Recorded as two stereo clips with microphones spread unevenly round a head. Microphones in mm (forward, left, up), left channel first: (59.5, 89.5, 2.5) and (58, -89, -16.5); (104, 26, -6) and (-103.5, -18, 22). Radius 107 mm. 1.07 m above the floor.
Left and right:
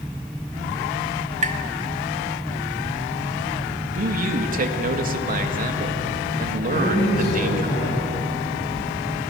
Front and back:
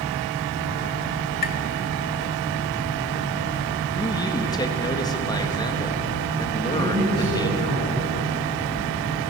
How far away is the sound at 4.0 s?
About 1.7 m.